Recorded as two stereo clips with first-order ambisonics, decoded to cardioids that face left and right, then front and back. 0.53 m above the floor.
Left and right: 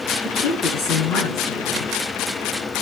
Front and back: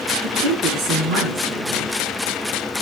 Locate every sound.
0.2 s a woman speaking: 150° left, 6 m